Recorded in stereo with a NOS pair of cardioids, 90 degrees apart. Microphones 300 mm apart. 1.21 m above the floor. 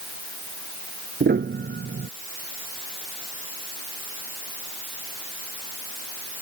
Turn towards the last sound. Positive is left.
turn(degrees=-35)